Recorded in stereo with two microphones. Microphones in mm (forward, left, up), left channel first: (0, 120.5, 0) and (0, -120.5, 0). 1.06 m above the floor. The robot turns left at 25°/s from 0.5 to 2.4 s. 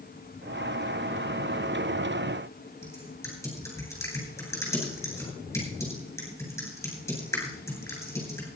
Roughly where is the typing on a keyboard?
Centre.